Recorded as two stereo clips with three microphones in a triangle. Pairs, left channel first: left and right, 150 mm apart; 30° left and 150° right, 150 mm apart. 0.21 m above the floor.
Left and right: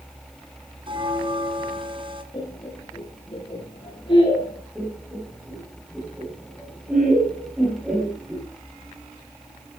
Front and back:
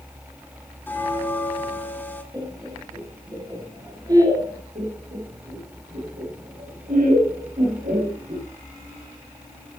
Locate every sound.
0.9 s a bell: 45° right, 2.0 m
2.3 s laughter: 145° left, 3.5 m
4.8 s laughter: 170° right, 6.5 m